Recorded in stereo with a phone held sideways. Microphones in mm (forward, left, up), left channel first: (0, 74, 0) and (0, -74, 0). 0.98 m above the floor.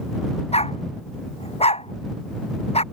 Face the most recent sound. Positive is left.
turn(degrees=45)  # may be behind; listen again after turning